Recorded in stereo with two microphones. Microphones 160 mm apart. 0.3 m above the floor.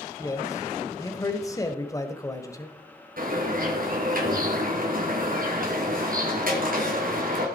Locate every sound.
0.2 s a man speaking: 20° left (ahead or behind), 1.2 m
3.2 s a bird: 60° right (ahead or behind), 3.5 m